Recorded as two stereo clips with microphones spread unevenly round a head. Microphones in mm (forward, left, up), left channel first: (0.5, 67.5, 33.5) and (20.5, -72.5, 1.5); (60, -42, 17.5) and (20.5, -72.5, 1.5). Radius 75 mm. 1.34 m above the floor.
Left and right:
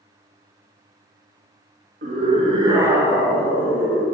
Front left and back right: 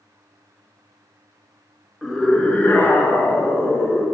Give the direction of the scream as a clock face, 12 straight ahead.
2 o'clock.